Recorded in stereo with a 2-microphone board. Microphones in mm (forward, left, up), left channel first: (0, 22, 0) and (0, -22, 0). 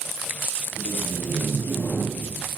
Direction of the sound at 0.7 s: 90° left.